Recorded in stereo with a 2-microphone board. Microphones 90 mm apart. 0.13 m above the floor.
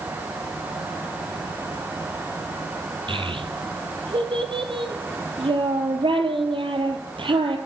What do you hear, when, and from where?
3.1 s a child speaking: 70° right (ahead or behind), 1.8 m